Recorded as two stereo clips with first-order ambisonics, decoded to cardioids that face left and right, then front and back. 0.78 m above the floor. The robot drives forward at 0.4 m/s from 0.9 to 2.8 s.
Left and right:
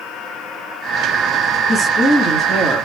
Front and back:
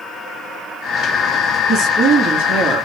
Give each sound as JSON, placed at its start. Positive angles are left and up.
{"t": 1.7, "sound": "a woman speaking", "azimuth_deg": 165, "distance_m": 1.2}